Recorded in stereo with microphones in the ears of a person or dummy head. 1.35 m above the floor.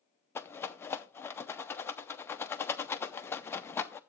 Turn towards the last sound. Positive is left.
turn(degrees=10)  # may be behind; listen again after turning